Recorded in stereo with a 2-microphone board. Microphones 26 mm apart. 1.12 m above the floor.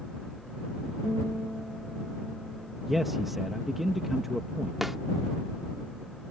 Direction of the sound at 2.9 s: 10° right (ahead or behind).